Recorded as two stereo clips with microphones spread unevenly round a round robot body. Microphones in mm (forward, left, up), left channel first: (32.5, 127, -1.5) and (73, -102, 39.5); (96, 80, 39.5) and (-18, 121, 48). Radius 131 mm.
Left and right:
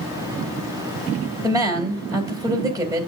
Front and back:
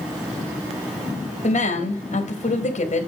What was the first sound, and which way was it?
A woman speaking, straight ahead.